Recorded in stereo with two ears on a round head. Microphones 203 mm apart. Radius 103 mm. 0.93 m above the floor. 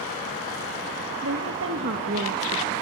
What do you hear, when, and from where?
1.2 s a woman speaking: 65° right (ahead or behind), 1.8 m; by 2.7 s 40° right (ahead or behind), 1.1 m